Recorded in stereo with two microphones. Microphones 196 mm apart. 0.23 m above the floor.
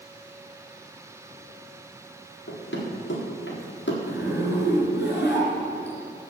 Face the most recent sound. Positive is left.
turn(degrees=65)  # may be behind; listen again after turning